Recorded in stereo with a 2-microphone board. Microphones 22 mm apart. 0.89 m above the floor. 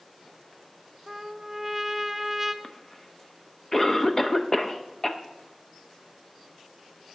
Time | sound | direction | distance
1.1 | a trumpet | 5° right (ahead or behind) | 0.6 m
2.6 | a cough | 20° left (ahead or behind) | 0.9 m